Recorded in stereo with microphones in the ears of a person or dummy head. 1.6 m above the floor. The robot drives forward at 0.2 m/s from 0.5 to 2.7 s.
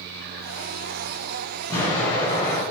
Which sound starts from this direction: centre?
An explosion, at 1.7 s.